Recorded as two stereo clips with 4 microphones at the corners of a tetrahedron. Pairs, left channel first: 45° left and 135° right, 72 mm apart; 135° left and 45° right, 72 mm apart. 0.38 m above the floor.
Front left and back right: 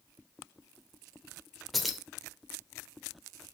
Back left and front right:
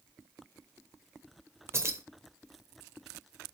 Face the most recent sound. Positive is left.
turn(degrees=-45)